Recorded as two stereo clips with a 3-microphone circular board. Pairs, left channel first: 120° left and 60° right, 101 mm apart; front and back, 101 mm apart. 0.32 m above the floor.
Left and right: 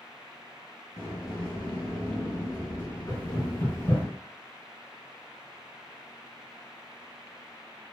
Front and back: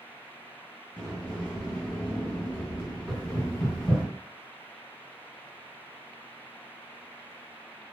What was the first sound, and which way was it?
A sliding door, 80° left.